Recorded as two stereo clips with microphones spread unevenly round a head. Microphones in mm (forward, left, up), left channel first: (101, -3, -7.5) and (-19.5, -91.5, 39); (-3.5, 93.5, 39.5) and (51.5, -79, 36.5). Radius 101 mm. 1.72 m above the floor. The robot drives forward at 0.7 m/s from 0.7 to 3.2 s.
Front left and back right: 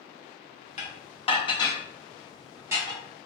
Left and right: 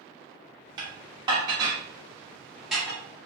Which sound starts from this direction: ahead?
Dishes clattering, at 0.8 s.